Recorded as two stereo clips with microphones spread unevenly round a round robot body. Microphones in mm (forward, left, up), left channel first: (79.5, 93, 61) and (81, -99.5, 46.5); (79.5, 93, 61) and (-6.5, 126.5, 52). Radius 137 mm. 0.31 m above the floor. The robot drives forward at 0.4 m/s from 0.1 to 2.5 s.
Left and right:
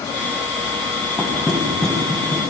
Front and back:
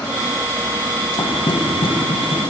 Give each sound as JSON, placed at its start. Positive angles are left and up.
{"t": 1.2, "sound": "knocking", "azimuth_deg": 5, "distance_m": 1.6}